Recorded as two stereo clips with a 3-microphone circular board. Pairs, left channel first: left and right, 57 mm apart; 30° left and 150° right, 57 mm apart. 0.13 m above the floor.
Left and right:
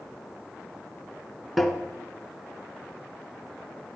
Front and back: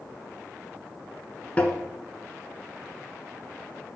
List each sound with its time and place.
1.6 s tapping: 5° right, 1.5 m